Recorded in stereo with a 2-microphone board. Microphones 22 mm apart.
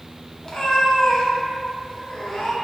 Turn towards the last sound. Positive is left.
turn(degrees=25)  # may be behind; listen again after turning